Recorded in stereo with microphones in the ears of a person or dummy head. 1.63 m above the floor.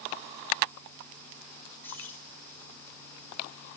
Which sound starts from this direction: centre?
Keys jangling, at 1.8 s.